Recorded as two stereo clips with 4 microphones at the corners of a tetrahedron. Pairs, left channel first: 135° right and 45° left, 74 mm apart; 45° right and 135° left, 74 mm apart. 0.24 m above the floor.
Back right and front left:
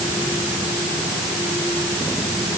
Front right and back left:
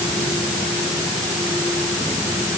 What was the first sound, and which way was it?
Only background noise.